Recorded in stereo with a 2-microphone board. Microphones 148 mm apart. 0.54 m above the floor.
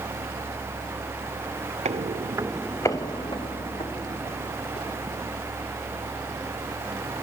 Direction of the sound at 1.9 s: 50° right (ahead or behind).